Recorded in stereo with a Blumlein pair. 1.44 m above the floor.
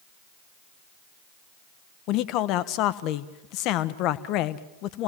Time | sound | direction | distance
2.1 | a man speaking | 40° left | 1.1 m